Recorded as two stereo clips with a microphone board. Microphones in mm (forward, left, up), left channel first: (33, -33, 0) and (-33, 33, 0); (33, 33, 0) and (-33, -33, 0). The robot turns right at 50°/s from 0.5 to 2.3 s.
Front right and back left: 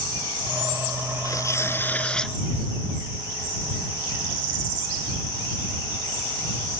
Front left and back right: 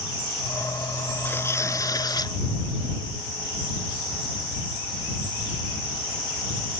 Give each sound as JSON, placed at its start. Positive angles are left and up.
{"t": 1.2, "sound": "tearing paper", "azimuth_deg": -15}